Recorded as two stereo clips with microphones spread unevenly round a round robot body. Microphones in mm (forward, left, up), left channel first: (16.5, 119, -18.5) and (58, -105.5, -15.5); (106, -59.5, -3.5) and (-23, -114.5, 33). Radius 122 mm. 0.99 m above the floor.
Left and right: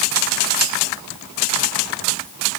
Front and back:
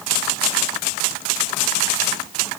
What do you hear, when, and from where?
Only background noise.